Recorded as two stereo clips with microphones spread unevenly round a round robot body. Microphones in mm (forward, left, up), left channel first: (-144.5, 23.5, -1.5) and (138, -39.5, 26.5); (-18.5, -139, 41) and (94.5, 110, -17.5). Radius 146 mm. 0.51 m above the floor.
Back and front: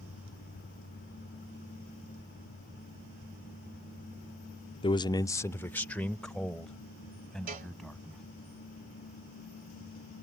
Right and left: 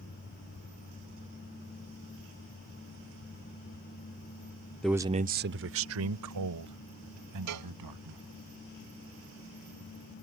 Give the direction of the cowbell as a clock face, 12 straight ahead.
10 o'clock.